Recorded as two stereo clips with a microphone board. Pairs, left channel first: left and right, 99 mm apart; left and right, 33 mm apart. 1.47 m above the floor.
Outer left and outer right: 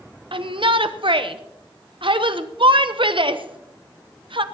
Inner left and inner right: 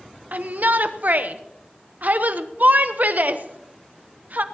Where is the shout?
55° right (ahead or behind), 0.9 m.